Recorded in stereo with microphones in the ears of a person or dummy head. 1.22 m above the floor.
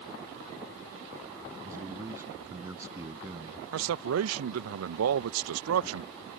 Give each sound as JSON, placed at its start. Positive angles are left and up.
{"t": 1.6, "sound": "a man speaking", "side_deg": -15}
{"t": 3.7, "sound": "a man speaking", "side_deg": -85}